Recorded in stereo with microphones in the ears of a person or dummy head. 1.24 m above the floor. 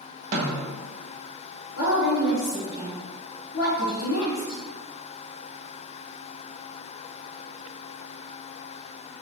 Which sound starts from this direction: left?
A woman speaking, at 1.8 s.